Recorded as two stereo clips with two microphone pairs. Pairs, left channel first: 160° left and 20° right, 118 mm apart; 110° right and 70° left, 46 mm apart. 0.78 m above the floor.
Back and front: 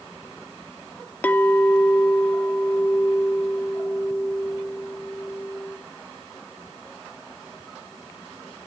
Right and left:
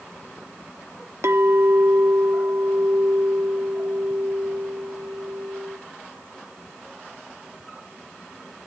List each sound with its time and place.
1.2 s a clink: 85° left, 0.8 m